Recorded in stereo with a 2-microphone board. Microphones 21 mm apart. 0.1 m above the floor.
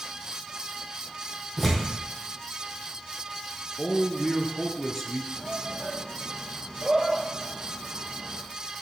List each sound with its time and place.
1.6 s tearing paper: 5° left (ahead or behind), 2.5 m
3.8 s a man speaking: 20° left (ahead or behind), 1.1 m
5.4 s a shout: 35° right (ahead or behind), 2 m